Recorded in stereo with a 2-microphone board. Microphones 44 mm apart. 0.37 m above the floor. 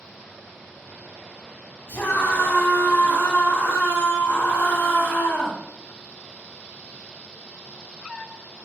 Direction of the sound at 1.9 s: 70° left (ahead or behind).